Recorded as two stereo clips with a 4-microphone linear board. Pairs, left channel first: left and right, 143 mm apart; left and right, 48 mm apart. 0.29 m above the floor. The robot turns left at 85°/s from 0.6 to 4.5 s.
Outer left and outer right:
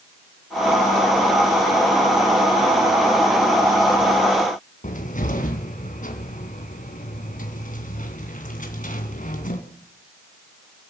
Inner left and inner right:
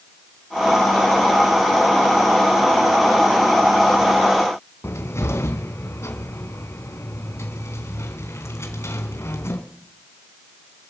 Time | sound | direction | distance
4.8 | a cupboard door | 65° left (ahead or behind) | 2.5 m